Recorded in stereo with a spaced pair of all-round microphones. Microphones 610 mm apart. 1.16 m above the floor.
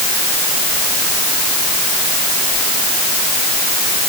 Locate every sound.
Only background noise.